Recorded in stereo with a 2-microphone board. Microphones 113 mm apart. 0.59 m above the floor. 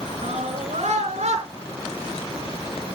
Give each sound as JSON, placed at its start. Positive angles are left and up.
{"t": 0.2, "sound": "a scream", "side_deg": -80, "distance_m": 7.0}